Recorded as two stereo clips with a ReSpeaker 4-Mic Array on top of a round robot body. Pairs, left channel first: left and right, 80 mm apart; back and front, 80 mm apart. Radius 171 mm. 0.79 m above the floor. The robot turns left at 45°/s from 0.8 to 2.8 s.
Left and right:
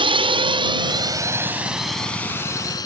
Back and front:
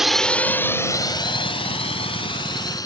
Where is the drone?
85° right; by 2.9 s 135° left.